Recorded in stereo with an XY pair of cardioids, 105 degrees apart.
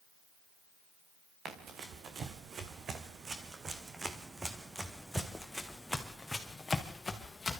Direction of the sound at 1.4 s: 70° right.